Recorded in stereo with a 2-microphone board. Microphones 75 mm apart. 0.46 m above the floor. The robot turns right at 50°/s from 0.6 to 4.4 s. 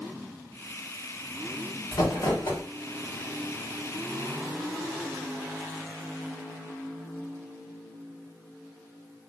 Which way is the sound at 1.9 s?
65° left.